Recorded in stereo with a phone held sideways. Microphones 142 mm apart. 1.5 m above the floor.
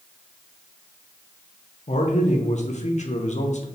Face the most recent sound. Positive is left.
turn(degrees=55)  # may be behind; listen again after turning